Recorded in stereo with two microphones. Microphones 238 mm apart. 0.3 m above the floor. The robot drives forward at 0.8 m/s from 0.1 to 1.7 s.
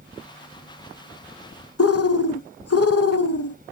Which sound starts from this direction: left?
A bird, at 1.8 s.